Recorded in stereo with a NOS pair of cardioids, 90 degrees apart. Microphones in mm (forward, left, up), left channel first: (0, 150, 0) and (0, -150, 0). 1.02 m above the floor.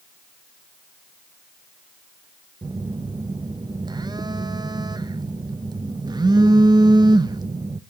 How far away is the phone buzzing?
About 0.6 m.